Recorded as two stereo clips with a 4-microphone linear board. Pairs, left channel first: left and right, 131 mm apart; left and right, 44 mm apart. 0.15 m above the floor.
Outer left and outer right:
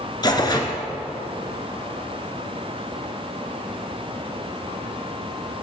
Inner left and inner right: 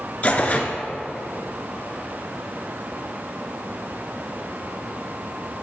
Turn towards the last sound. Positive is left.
turn(degrees=35)  # may be behind; listen again after turning